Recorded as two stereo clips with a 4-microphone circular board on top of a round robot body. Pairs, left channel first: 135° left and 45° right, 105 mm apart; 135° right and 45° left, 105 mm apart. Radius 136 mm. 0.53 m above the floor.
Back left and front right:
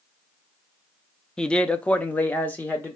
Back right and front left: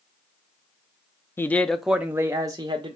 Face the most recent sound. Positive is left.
turn(degrees=65)